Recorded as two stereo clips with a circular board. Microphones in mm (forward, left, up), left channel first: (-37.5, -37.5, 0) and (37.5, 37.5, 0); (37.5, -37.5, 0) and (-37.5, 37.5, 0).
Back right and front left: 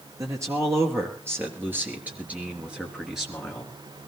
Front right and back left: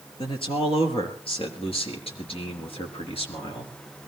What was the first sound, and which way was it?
A man speaking, 15° right.